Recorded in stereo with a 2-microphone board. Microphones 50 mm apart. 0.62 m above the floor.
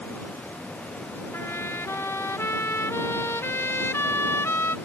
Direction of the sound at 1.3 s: 60° left (ahead or behind).